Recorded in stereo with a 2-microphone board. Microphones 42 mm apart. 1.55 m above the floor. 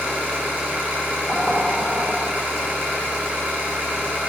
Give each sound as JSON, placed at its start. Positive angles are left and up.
{"t": 0.0, "sound": "an engine running", "side_deg": -45, "distance_m": 3.5}
{"t": 1.3, "sound": "knocking", "side_deg": -15, "distance_m": 3.0}